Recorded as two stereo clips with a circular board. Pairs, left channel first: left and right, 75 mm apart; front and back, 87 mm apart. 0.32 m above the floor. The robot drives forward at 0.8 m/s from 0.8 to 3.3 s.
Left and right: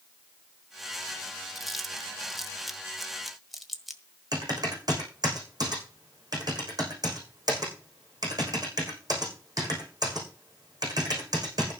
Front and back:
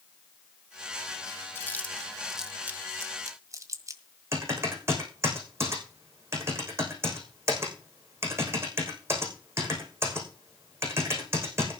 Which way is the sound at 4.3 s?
120° right.